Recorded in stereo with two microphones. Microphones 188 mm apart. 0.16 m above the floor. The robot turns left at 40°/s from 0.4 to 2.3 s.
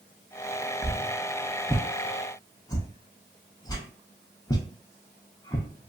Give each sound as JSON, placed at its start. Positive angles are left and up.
{"t": 0.8, "sound": "a whoosh", "side_deg": -15, "distance_m": 0.5}